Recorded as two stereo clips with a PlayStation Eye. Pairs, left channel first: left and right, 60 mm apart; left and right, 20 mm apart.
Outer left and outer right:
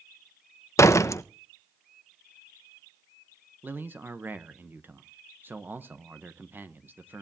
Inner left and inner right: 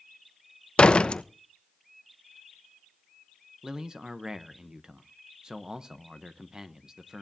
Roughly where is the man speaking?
Right.